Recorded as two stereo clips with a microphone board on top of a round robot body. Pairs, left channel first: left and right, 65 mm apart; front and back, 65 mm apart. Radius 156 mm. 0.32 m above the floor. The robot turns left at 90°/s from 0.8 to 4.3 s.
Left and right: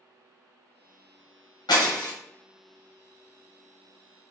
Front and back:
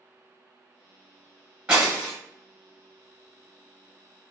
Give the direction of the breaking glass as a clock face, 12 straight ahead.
8 o'clock.